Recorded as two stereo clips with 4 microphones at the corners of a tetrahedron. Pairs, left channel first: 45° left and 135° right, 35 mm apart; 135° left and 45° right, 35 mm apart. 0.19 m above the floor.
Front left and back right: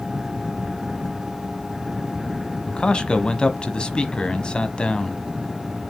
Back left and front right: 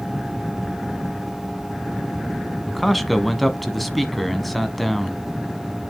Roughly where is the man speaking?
Ahead left.